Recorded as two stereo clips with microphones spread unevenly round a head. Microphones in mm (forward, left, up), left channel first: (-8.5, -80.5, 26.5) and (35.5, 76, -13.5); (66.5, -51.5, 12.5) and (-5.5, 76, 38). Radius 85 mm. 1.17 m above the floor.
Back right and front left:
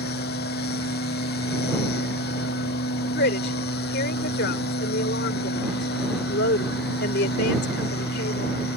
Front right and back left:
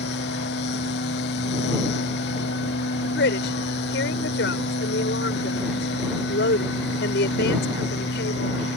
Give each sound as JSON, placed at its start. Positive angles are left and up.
{"t": 0.0, "sound": "a machine running", "azimuth_deg": -85}
{"t": 3.0, "sound": "a woman speaking", "azimuth_deg": -85}